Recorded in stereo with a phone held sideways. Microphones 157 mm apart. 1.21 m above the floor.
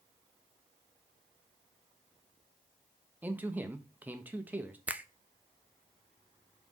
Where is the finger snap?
10° right (ahead or behind), 0.5 m.